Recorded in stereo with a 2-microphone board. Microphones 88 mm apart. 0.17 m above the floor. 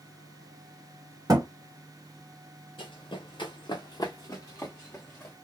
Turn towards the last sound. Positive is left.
turn(degrees=20)  # may be behind; listen again after turning